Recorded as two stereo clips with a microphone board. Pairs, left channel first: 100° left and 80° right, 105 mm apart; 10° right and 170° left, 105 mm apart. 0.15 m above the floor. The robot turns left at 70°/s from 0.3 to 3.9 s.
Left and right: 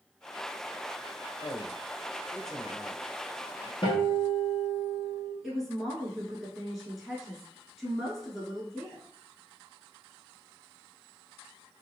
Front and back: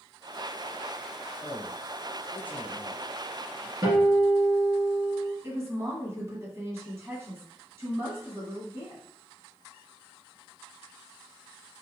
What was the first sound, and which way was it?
A man speaking, 95° left.